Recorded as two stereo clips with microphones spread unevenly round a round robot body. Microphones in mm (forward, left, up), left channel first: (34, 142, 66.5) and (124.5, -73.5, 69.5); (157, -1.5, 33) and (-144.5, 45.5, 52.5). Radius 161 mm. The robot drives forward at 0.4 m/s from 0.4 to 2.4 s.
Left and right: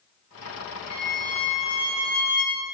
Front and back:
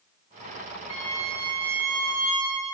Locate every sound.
0.9 s a violin: 175° right, 4 m